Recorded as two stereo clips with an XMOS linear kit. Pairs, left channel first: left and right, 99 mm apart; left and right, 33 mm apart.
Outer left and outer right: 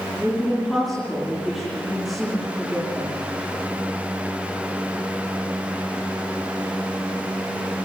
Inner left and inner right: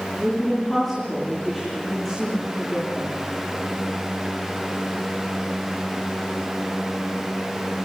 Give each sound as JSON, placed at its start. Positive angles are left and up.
{"t": 0.2, "sound": "a woman speaking", "side_deg": 0, "distance_m": 9.5}